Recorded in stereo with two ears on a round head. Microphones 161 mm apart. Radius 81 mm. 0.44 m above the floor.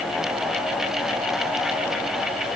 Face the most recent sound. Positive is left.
No sound to turn to.